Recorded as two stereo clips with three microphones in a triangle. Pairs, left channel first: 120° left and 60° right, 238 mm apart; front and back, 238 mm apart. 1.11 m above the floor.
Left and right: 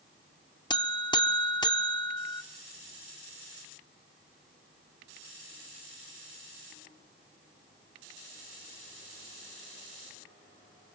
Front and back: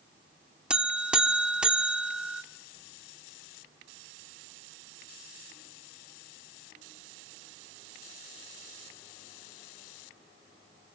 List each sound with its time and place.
0.7 s a buzzer: 105° left, 0.7 m